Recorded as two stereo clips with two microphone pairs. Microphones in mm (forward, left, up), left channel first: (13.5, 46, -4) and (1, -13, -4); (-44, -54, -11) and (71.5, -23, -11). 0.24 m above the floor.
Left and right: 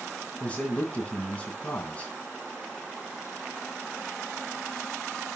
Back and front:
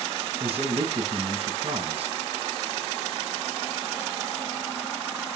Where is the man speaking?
15° left, 2.5 m.